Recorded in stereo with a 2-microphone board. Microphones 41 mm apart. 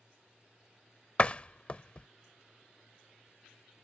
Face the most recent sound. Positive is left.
turn(degrees=30)  # may be behind; listen again after turning